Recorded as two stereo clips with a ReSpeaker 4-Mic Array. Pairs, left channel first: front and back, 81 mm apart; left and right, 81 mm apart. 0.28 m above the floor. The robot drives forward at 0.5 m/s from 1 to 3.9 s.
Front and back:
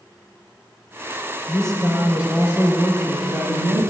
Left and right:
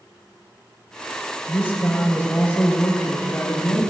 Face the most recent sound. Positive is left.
turn(degrees=150)